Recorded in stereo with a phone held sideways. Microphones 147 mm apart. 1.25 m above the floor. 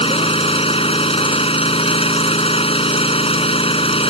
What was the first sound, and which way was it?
An engine running, 40° left (ahead or behind).